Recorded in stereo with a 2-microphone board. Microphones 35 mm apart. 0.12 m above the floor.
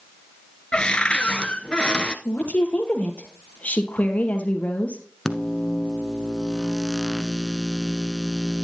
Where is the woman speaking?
45° left (ahead or behind), 2.5 m.